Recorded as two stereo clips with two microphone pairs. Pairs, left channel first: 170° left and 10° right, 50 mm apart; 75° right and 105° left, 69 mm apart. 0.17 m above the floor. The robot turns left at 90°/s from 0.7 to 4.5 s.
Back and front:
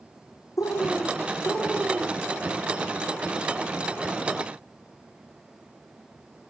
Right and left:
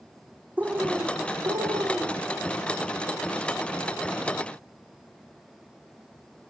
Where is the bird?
175° left, 2.5 m; by 2.3 s 35° left, 2.5 m.